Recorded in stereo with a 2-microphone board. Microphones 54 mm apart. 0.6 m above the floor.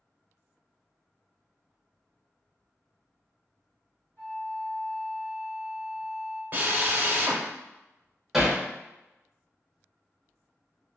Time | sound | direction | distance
4.2 | a flute | 45° left (ahead or behind) | 1.5 m
6.5 | a drill | 40° right (ahead or behind) | 0.6 m
8.3 | hammering | 5° right (ahead or behind) | 0.8 m